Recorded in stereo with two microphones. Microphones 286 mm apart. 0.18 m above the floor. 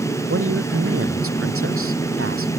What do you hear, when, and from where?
0.3 s a woman speaking: 50° right (ahead or behind)